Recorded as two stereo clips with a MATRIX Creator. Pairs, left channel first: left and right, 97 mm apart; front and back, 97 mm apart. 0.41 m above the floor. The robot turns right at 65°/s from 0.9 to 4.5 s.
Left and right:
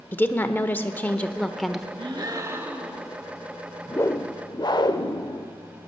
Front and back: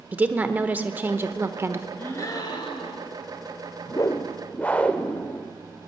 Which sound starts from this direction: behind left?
A woman speaking, at 0.1 s.